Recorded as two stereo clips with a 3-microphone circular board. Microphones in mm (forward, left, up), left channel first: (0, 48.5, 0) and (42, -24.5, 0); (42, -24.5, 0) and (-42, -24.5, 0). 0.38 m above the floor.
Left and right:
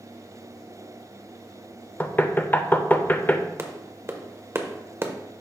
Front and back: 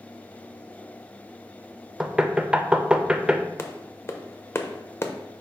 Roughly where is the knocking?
Behind left.